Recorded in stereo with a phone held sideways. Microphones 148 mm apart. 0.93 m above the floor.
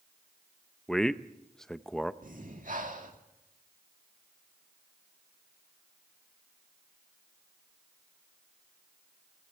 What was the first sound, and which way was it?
A man speaking, 5° left (ahead or behind).